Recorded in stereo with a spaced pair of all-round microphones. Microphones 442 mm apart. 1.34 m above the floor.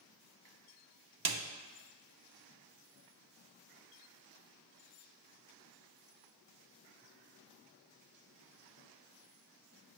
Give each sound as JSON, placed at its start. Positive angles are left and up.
{"t": 1.2, "sound": "a snare drum", "side_deg": -55, "distance_m": 0.6}